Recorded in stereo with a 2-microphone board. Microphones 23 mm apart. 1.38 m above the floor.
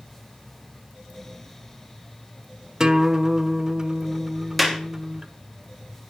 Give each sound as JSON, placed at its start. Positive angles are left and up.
{"t": 2.8, "sound": "a guitar", "side_deg": -25, "distance_m": 1.2}
{"t": 4.6, "sound": "a clap", "side_deg": 0, "distance_m": 3.0}